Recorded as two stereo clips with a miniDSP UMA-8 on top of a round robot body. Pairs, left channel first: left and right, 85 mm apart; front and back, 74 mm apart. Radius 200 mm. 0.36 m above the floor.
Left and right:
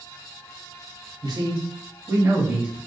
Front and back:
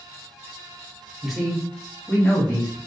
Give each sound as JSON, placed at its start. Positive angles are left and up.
{"t": 1.2, "sound": "a man speaking", "azimuth_deg": -95, "distance_m": 2.0}